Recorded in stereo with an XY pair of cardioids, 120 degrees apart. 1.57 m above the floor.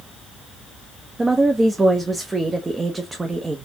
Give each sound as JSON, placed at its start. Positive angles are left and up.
{"t": 1.2, "sound": "a woman speaking", "azimuth_deg": -20, "distance_m": 0.8}